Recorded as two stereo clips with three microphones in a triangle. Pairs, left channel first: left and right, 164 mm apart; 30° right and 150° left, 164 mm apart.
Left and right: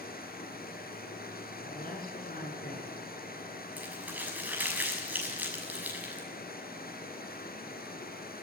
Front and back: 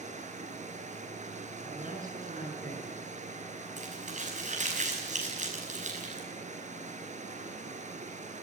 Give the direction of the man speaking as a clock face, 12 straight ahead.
8 o'clock.